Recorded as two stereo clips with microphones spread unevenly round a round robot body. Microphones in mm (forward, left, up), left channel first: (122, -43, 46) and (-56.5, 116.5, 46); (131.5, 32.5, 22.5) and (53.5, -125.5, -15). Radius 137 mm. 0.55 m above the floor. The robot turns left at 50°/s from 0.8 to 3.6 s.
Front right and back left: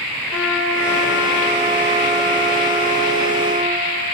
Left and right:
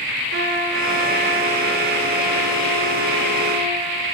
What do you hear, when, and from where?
0.3 s a trumpet: 130° right, 0.9 m; by 3.9 s 90° left, 0.9 m